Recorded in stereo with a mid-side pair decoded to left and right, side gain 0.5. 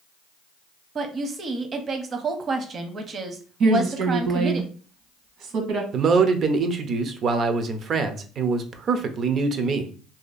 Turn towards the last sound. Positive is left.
turn(degrees=-50)